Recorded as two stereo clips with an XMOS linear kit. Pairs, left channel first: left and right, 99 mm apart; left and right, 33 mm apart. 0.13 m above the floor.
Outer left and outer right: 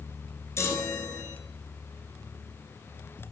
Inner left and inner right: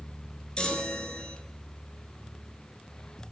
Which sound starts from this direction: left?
A chime, at 0.6 s.